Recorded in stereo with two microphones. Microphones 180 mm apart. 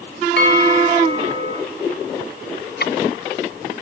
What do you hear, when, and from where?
0.4 s a bell: 75° left (ahead or behind), 7 m
2.8 s ticking: 60° left (ahead or behind), 0.8 m